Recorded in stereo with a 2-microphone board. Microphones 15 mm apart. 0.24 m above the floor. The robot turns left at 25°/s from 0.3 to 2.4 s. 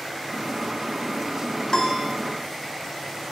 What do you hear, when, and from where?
1.7 s a piano: 50° left (ahead or behind), 0.7 m; by 2.1 s 40° left (ahead or behind), 0.7 m